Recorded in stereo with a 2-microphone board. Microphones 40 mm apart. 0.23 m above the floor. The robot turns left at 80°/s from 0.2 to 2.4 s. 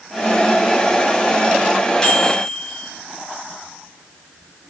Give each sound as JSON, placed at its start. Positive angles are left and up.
{"t": 2.0, "sound": "a microwave", "azimuth_deg": 35, "distance_m": 1.0}